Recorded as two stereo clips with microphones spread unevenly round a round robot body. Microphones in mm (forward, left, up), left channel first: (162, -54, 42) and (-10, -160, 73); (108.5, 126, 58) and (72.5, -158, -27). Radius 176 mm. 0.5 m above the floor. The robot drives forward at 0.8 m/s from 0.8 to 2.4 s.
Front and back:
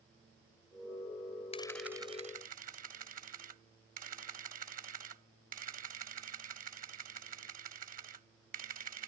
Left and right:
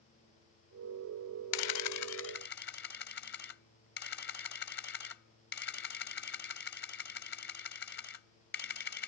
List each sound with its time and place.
1.5 s a camera shutter: 100° left; by 9.1 s 145° left